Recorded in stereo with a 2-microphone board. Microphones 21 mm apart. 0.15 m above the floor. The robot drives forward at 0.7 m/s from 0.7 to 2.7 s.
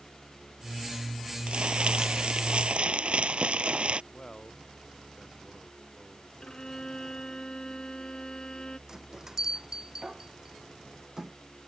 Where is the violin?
40° left (ahead or behind).